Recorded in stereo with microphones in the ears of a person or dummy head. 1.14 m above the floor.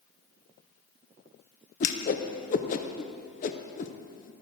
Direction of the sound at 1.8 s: 35° left (ahead or behind).